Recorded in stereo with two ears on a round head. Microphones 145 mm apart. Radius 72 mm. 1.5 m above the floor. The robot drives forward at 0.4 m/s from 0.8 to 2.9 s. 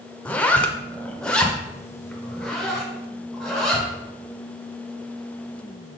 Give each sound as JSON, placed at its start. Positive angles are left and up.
{"t": 0.2, "sound": "a zipper", "side_deg": 10, "distance_m": 0.5}